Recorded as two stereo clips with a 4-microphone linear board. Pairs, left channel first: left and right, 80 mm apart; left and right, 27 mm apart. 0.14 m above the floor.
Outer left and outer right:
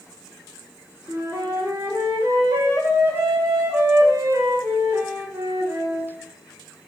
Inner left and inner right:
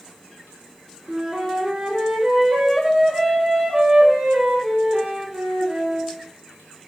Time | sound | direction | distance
1.1 | a flute | 40° right (ahead or behind) | 1.2 m